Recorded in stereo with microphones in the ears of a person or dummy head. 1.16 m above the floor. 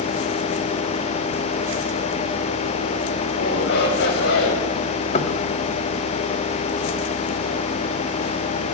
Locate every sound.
3.3 s a shout: 60° left (ahead or behind), 7 m; by 4.7 s 70° left (ahead or behind), 7 m
5.1 s knocking: 35° left (ahead or behind), 1.9 m